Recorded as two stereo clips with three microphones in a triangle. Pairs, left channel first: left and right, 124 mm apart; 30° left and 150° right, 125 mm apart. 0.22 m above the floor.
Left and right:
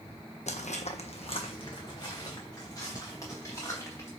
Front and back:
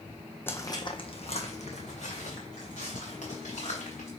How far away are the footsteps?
About 0.5 m.